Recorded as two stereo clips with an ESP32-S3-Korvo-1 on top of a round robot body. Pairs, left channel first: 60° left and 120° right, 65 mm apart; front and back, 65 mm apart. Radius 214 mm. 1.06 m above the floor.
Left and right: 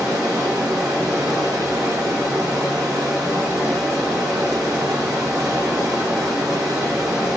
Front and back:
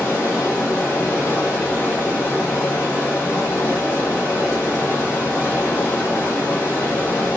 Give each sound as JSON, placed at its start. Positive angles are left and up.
{"t": 0.0, "sound": "running water", "azimuth_deg": -60, "distance_m": 3.0}